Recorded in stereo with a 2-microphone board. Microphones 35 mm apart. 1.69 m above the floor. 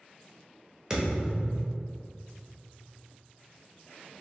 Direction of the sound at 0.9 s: 15° right (ahead or behind).